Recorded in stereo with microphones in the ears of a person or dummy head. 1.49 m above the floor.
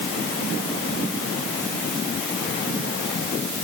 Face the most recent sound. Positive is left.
No sound to turn to.